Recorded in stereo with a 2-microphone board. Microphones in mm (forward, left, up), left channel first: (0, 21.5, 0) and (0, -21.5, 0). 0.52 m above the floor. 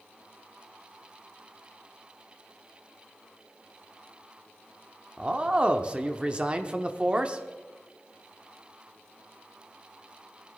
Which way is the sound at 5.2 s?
25° right (ahead or behind).